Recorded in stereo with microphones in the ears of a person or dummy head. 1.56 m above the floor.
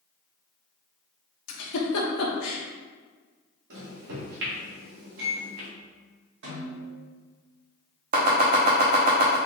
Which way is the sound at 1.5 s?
80° left.